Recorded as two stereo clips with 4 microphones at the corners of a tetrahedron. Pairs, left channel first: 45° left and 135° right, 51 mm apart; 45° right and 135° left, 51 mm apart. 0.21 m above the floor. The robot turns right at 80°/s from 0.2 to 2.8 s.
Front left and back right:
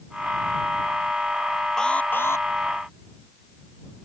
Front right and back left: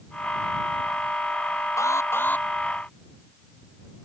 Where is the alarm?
35° right; by 2.5 s 20° left.